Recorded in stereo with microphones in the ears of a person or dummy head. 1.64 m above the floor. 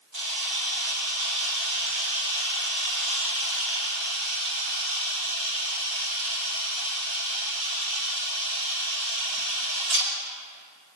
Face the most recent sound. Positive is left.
turn(degrees=-70)  # may be behind; listen again after turning